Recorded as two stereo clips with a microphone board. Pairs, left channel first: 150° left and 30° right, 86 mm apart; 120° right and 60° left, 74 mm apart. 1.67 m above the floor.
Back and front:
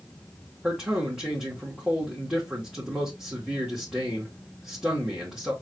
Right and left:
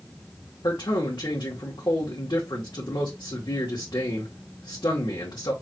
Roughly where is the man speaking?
Right.